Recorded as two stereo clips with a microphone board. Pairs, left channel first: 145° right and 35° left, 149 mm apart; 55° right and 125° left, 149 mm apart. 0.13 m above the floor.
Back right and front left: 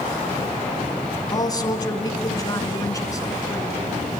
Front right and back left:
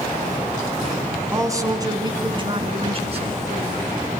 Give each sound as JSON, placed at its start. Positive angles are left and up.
{"t": 1.3, "sound": "a man speaking", "azimuth_deg": 180, "distance_m": 2.0}